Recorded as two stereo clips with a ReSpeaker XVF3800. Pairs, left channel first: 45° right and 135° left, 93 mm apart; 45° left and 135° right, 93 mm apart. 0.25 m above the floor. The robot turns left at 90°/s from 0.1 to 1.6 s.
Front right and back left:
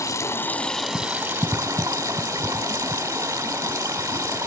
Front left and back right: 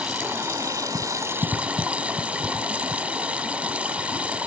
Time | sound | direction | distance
0.0 | running water | 60° right | 1.4 m